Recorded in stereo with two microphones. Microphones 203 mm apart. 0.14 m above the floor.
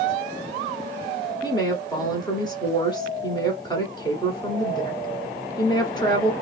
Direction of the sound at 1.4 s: 20° left (ahead or behind).